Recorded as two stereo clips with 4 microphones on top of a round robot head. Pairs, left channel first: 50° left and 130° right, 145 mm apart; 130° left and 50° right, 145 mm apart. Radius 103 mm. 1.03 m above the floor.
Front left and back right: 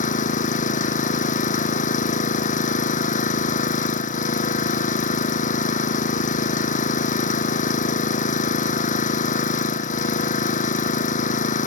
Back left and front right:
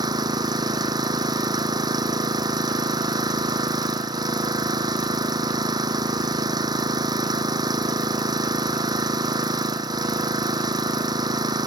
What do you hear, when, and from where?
0.0 s an engine running: 15° left